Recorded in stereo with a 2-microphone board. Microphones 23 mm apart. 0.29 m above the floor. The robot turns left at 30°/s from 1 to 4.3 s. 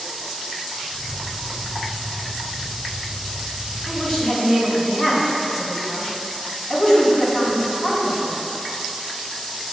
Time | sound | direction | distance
3.9 | a woman speaking | 30° left (ahead or behind) | 2.5 m